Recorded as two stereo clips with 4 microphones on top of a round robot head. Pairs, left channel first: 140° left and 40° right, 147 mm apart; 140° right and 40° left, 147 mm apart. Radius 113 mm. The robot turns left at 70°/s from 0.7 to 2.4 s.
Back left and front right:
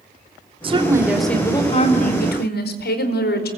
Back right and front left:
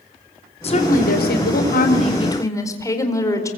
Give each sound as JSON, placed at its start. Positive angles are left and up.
{"t": 0.6, "sound": "a woman speaking", "azimuth_deg": -90, "distance_m": 4.5}